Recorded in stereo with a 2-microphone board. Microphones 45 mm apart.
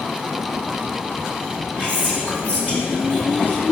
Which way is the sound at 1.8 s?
30° left (ahead or behind).